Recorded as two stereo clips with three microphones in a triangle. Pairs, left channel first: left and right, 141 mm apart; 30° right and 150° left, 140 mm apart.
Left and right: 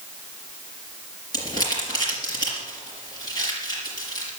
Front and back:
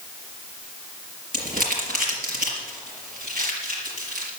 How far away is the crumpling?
About 4.5 m.